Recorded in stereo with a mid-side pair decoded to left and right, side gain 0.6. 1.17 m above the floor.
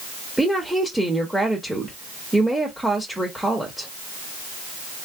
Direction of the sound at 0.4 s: 5° right.